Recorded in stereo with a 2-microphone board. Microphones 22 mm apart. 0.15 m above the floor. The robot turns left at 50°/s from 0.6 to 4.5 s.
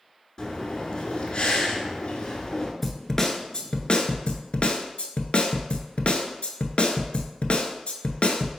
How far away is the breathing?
About 0.8 m.